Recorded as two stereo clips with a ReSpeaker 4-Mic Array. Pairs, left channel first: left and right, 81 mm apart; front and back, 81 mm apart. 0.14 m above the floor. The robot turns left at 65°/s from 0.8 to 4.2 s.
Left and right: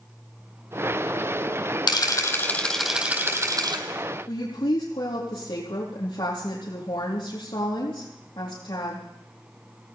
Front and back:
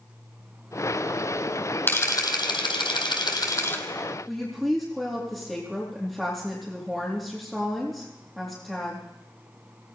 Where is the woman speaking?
90° left, 4 m.